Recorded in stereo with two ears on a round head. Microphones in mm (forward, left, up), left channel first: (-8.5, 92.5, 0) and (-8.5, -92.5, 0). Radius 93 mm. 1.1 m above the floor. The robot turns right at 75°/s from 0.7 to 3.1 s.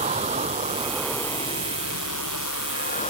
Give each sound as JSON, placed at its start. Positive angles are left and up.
{"t": 0.0, "sound": "a vehicle", "azimuth_deg": -30}